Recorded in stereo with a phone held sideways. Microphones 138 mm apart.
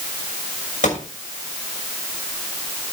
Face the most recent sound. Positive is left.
turn(degrees=75)  # may be behind; listen again after turning